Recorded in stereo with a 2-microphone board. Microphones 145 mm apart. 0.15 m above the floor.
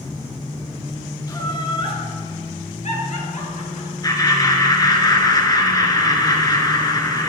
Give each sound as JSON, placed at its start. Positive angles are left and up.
{"t": 1.3, "sound": "laughter", "side_deg": 25, "distance_m": 2.0}
{"t": 4.0, "sound": "laughter", "side_deg": 25, "distance_m": 1.9}